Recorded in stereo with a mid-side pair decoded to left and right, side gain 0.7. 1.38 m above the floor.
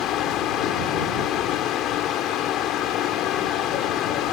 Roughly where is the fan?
Ahead left.